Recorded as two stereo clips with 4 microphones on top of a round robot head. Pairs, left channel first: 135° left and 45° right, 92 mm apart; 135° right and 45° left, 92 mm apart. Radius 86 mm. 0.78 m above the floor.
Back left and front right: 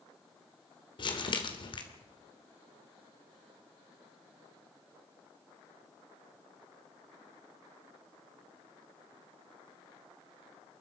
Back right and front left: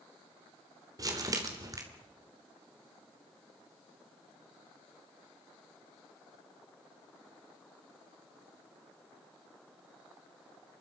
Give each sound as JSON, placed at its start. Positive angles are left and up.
{"t": 1.0, "sound": "crumpling", "azimuth_deg": 100, "distance_m": 3.0}